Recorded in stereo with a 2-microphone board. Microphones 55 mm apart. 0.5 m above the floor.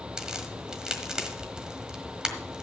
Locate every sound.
0.2 s a crack: 15° right (ahead or behind), 1.4 m